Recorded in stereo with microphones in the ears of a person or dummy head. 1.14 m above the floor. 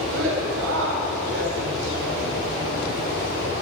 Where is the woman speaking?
80° right, 3.5 m.